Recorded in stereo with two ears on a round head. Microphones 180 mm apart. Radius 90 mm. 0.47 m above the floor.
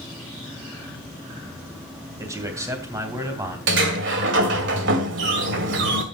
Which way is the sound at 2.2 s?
15° right (ahead or behind).